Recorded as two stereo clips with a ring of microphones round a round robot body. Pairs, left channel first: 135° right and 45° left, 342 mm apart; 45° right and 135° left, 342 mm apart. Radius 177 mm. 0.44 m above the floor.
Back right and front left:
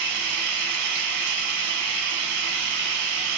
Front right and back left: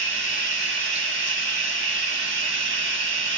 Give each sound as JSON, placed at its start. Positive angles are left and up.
{"t": 0.0, "sound": "running water", "azimuth_deg": 80, "distance_m": 0.8}